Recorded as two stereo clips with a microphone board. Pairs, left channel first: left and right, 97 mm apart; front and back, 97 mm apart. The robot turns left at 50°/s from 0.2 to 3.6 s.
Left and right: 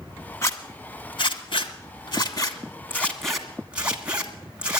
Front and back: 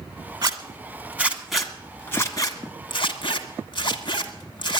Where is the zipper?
145° left, 1.6 m; by 4.8 s 15° right, 1.6 m.